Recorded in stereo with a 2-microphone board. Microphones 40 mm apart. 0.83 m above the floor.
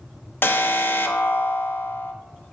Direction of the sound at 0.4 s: 70° left (ahead or behind).